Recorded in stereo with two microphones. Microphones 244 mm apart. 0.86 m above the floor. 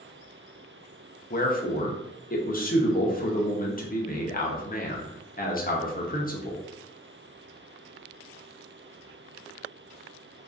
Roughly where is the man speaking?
Left.